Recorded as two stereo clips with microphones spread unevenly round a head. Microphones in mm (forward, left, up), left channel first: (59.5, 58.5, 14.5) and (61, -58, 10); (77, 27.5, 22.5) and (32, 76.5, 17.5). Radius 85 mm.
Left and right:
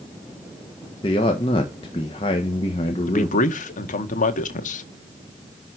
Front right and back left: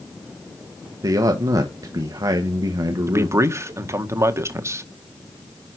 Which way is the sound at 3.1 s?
85° left.